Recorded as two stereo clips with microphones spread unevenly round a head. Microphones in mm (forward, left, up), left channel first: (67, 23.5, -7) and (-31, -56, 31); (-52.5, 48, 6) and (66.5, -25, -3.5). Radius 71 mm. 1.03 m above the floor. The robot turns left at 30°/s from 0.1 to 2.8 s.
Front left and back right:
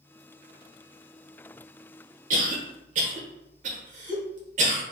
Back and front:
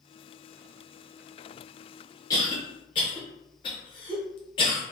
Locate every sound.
2.3 s a cough: 150° right, 0.8 m; by 4.8 s 165° right, 0.8 m